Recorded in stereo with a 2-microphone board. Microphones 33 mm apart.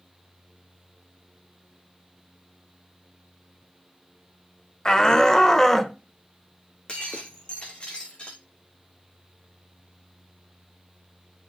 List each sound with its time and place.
4.8 s a shout: 25° left (ahead or behind), 0.9 m; by 6.0 s 10° left (ahead or behind), 1.0 m
6.9 s breaking glass: 35° left (ahead or behind), 2.5 m